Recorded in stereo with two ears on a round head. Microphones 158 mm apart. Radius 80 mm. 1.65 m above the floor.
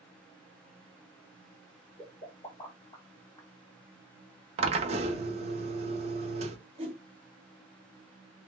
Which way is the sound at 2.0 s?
25° left (ahead or behind).